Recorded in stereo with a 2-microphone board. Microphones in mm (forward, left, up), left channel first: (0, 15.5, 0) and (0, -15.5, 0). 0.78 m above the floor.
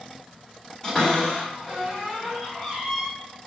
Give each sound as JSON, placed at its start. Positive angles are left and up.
{"t": 0.8, "sound": "a cupboard door", "side_deg": 15, "distance_m": 2.0}